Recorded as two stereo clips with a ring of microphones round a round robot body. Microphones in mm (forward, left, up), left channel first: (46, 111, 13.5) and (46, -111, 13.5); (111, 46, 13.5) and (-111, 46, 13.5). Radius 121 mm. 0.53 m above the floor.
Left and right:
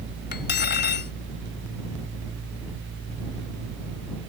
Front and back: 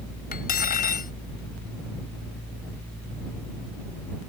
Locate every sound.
0.3 s cutlery clinking: 50° left